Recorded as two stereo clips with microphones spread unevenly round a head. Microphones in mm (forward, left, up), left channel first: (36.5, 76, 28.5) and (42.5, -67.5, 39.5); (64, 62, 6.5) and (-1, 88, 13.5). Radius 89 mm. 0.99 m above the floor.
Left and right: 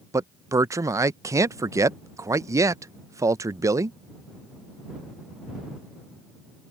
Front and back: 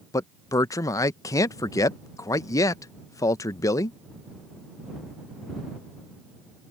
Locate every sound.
0.1 s a man speaking: 20° right